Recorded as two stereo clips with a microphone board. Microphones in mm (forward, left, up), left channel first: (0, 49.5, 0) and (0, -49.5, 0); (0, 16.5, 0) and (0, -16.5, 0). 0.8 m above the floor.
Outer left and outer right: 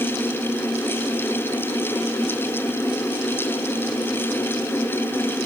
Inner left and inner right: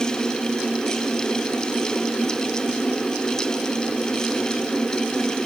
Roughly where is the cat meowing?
No cat meowing in this recording.